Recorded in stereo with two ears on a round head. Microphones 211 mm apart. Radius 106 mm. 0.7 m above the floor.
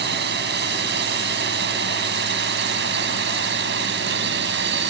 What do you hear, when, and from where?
0.0 s a drone: 45° right (ahead or behind); by 4.9 s 50° right (ahead or behind)